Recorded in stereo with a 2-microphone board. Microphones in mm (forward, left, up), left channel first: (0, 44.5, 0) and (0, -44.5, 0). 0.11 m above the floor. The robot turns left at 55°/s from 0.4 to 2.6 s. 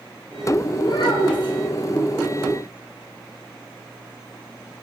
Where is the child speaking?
120° left, 2 m; by 1.5 s 80° left, 2 m.